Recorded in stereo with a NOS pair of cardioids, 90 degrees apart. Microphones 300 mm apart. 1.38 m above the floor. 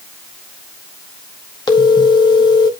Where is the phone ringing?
15° left, 1.7 m.